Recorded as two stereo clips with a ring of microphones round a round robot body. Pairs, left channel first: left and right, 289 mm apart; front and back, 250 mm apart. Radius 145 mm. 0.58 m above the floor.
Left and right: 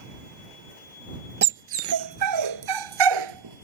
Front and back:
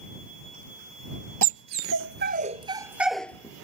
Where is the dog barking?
145° right; by 3.6 s 80° right.